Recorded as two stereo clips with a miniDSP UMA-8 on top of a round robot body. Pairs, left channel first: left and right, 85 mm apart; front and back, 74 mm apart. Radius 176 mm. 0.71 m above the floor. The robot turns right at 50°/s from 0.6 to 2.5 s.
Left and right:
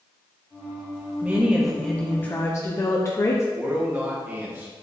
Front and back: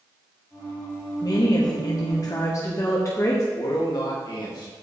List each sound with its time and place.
1.2 s a woman speaking: 25° right, 1.2 m; by 3.4 s 40° left, 1.2 m
3.5 s a man speaking: 25° right, 2.5 m